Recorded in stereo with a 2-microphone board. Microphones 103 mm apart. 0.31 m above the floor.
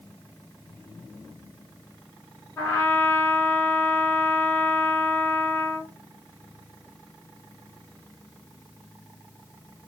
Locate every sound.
2.6 s a trumpet: 25° left (ahead or behind), 1.6 m